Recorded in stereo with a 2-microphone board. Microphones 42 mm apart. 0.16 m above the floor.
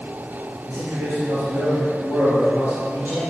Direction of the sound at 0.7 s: 55° right (ahead or behind).